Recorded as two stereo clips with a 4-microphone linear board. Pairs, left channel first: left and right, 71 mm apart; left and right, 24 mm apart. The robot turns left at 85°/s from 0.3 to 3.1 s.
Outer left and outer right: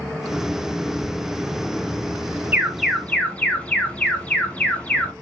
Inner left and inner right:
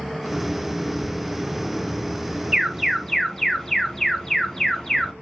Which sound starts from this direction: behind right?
An alarm, at 2.5 s.